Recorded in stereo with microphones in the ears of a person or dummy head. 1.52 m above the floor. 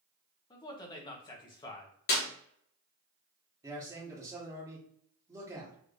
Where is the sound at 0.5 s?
20° left (ahead or behind), 0.8 m.